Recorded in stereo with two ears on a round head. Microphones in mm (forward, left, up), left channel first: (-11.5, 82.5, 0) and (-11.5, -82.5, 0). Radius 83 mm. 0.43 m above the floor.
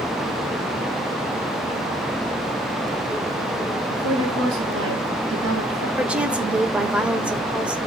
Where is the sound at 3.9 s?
75° right (ahead or behind), 5.5 m.